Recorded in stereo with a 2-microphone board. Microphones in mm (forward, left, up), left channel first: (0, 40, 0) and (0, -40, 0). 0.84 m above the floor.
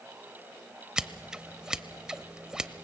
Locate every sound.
1.0 s scissors: 10° right (ahead or behind), 0.6 m